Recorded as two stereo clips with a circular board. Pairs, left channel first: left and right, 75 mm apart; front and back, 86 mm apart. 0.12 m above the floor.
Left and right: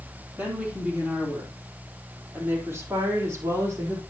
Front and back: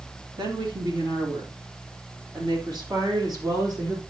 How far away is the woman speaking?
About 4 m.